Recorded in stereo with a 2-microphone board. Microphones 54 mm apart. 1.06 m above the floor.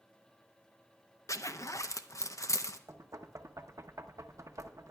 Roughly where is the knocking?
Right.